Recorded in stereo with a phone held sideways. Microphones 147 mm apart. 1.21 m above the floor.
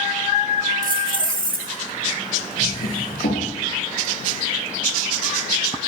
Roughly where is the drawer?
Left.